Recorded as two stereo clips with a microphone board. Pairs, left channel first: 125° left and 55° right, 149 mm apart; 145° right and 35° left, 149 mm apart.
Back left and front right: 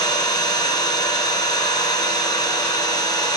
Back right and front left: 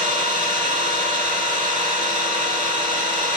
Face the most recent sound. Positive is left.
turn(degrees=65)